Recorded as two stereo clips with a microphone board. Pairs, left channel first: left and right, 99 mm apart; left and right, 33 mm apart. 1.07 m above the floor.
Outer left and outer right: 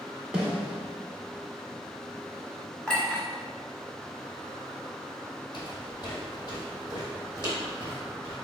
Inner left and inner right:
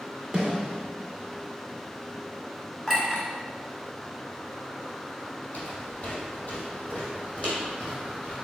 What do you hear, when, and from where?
0.3 s a snare drum: 10° right (ahead or behind), 1.5 m
2.9 s a clink: 10° left (ahead or behind), 1.5 m
5.5 s footsteps: 45° left (ahead or behind), 1.7 m; by 8.3 s 30° left (ahead or behind), 2.5 m